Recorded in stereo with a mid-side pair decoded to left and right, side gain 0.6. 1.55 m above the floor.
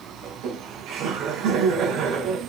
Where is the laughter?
65° right, 5 m.